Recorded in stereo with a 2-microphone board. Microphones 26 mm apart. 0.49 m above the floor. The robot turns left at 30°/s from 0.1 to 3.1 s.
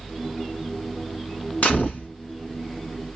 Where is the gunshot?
75° left (ahead or behind), 2.5 m; by 2.1 s 60° left (ahead or behind), 2.5 m.